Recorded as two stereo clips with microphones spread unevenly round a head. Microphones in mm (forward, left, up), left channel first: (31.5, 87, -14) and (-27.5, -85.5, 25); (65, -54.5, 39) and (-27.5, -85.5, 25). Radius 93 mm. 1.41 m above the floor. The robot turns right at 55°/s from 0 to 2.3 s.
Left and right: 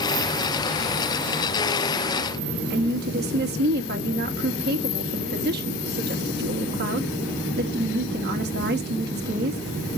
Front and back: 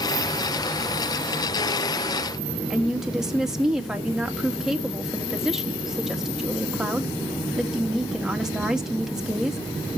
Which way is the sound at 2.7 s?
75° right.